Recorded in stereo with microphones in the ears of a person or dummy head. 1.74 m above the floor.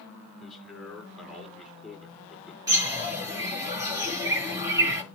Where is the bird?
20° right (ahead or behind), 6 m.